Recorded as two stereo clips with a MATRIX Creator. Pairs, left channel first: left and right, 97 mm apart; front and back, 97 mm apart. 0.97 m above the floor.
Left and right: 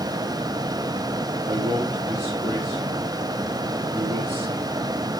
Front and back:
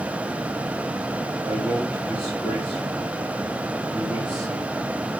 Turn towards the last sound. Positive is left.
turn(degrees=-115)